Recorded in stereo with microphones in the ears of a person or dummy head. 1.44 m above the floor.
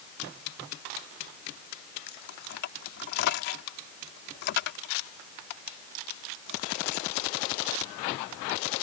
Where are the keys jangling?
65° left (ahead or behind).